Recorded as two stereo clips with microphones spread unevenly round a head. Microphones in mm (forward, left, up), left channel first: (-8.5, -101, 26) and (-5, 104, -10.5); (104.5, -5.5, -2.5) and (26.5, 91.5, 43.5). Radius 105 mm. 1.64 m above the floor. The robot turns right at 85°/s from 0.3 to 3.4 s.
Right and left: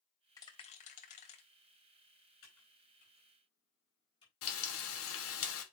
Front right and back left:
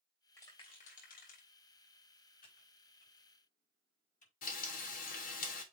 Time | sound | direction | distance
0.4 | a rattle | 145° right | 1.5 m
2.4 | typing on a keyboard | 110° right | 4 m
4.4 | frying | 65° right | 1.3 m